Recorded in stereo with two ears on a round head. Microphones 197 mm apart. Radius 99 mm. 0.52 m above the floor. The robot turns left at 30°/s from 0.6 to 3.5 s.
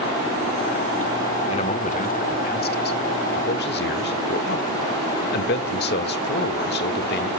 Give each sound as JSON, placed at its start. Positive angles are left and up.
{"t": 1.5, "sound": "a man speaking", "azimuth_deg": 145, "distance_m": 1.3}